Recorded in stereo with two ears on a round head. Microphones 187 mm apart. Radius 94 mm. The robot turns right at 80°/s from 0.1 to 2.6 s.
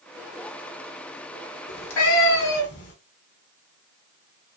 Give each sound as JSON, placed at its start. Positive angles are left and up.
{"t": 1.7, "sound": "a cat meowing", "azimuth_deg": 45, "distance_m": 1.1}